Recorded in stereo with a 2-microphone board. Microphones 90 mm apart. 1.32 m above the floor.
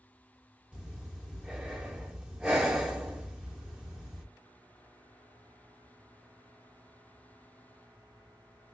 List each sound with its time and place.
0.7 s breathing: 10° right (ahead or behind), 1.1 m